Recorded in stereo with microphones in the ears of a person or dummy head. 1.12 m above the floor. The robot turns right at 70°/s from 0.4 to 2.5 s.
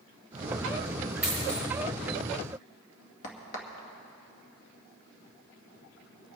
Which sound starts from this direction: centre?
A dropped coin, at 1.2 s.